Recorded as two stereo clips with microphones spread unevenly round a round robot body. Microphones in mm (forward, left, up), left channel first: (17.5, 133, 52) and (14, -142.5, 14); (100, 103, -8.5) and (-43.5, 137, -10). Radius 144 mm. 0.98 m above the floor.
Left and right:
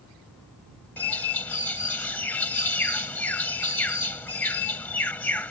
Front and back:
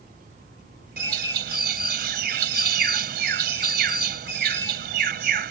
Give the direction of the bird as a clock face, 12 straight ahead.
6 o'clock.